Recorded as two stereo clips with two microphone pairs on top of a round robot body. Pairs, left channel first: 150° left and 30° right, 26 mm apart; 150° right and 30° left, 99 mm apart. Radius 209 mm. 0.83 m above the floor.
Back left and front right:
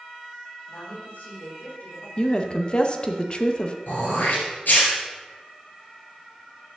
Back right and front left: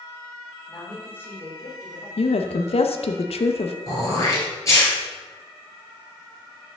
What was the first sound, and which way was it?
A woman speaking, 130° left.